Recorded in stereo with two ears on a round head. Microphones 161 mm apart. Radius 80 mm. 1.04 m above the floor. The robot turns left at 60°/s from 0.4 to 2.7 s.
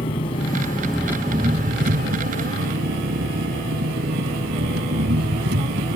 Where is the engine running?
30° left; by 6.0 s 105° right.